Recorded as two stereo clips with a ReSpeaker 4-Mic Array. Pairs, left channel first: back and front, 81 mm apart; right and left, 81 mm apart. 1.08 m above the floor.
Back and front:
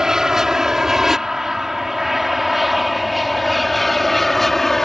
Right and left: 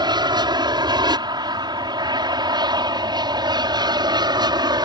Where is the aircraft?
80° left; by 4.9 s 95° left.